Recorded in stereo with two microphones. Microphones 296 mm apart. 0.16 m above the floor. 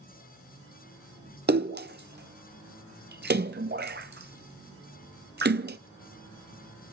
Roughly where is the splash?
Right.